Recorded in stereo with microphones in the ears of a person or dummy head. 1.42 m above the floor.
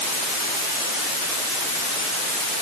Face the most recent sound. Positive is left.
No sound to turn to.